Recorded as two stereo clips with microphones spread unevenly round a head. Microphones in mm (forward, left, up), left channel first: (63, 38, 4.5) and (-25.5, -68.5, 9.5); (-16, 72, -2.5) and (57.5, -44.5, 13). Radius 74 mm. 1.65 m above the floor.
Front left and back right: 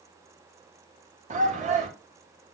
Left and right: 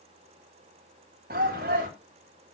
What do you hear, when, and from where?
1.3 s a shout: 95° right, 3 m